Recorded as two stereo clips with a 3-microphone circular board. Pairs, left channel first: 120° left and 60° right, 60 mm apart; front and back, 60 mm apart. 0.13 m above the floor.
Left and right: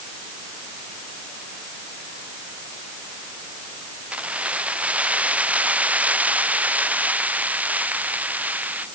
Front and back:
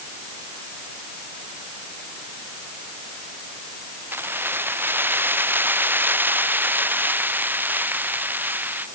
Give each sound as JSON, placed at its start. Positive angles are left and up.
{"t": 4.1, "sound": "keys jangling", "azimuth_deg": -125}